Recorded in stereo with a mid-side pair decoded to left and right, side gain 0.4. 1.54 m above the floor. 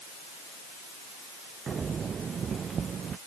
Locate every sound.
1.7 s footsteps: 50° right; by 3.2 s 55° right